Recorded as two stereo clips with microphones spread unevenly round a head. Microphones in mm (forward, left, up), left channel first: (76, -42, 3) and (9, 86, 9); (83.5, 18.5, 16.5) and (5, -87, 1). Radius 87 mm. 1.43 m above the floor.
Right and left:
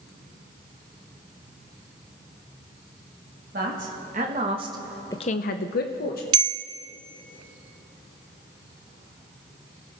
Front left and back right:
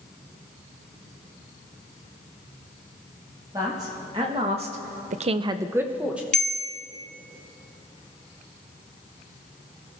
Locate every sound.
3.5 s a man speaking: 160° left, 2.0 m; by 6.2 s 45° right, 1.3 m
6.3 s a bell: 120° left, 0.6 m